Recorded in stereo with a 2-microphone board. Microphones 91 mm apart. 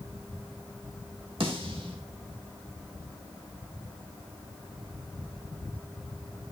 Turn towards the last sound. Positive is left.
turn(degrees=-75)  # may be behind; listen again after turning